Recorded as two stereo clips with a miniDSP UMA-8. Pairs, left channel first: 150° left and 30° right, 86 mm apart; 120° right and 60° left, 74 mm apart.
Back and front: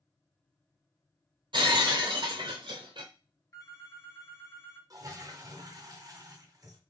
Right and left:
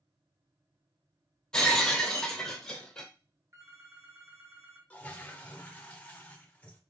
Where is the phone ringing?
105° left, 1.1 m.